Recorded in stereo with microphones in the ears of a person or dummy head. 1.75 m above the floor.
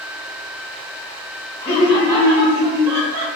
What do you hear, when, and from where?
1.6 s laughter: 30° left (ahead or behind), 0.6 m; by 3.3 s 35° right (ahead or behind), 0.7 m